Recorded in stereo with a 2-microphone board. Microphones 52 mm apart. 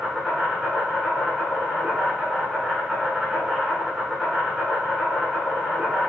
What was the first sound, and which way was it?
An insect, 10° right (ahead or behind).